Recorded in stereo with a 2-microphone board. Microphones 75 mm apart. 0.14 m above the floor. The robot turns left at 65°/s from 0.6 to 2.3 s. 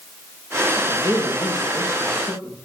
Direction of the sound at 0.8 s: 30° left (ahead or behind).